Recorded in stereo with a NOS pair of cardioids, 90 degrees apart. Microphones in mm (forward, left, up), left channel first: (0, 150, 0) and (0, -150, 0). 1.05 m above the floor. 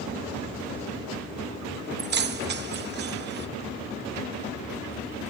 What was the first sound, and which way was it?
Keys jangling, 35° right.